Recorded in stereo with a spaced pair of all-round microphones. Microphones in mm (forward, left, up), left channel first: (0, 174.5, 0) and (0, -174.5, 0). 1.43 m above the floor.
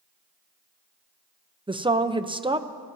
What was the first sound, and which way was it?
A woman speaking, 15° right (ahead or behind).